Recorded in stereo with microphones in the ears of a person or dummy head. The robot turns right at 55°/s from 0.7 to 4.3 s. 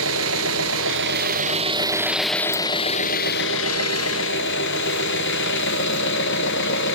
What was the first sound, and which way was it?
An engine running, 80° right.